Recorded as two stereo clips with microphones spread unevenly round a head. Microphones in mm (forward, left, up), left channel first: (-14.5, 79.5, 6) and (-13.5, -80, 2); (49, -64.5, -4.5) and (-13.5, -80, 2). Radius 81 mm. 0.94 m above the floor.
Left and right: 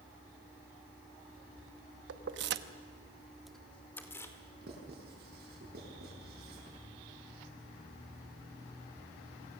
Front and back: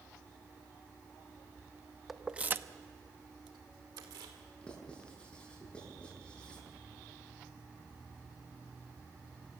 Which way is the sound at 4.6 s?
60° right.